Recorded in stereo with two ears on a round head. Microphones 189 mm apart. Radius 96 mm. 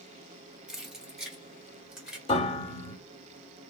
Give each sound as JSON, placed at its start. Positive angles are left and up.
{"t": 0.7, "sound": "keys jangling", "side_deg": -5, "distance_m": 0.9}
{"t": 2.3, "sound": "a piano", "side_deg": 25, "distance_m": 1.5}